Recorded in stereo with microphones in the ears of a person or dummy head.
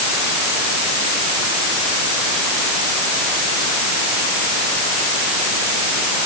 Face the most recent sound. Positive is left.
No sound to turn to.